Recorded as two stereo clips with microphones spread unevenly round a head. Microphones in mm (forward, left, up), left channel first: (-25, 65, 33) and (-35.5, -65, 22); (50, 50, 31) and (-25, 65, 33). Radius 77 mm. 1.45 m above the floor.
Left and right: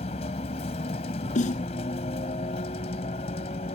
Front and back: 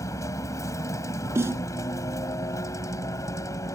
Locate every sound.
0.0 s a vehicle: 35° left
1.4 s a snare drum: 115° left